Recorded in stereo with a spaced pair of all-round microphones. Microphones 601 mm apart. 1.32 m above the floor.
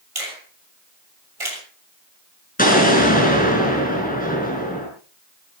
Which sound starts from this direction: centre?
An explosion, at 2.6 s.